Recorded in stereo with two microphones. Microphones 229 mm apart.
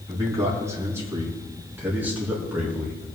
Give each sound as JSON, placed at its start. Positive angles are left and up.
{"t": 0.1, "sound": "a man speaking", "side_deg": -15, "distance_m": 5.0}